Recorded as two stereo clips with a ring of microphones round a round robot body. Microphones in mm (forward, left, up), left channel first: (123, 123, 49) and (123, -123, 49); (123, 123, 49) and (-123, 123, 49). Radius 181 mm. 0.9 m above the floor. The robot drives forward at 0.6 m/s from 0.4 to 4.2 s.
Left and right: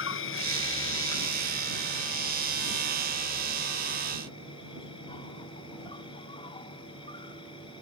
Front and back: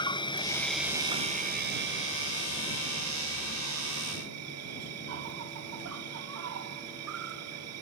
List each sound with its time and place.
0.0 s an insect: 70° left; by 7.8 s 165° left